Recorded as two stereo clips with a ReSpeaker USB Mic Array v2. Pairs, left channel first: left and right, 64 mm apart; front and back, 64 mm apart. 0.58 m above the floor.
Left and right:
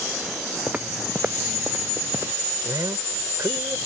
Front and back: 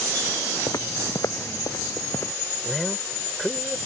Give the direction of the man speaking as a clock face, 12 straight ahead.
3 o'clock.